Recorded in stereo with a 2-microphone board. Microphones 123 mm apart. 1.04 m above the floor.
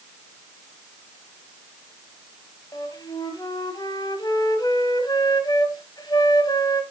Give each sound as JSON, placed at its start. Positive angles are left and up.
{"t": 2.7, "sound": "a flute", "side_deg": 35, "distance_m": 1.4}